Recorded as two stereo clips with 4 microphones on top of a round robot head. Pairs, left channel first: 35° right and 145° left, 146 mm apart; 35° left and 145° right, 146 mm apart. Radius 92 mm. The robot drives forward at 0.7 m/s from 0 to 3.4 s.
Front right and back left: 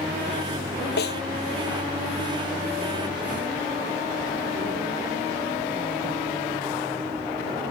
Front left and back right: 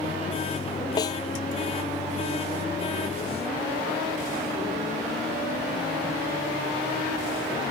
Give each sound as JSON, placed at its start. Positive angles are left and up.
{"t": 1.0, "sound": "a snare drum", "azimuth_deg": -30}